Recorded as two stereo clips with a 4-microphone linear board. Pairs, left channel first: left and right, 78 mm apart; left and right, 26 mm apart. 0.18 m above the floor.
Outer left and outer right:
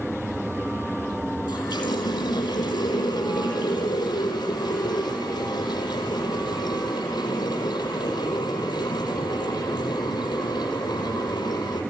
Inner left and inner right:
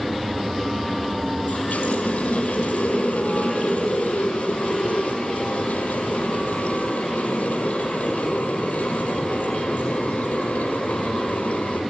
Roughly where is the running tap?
Left.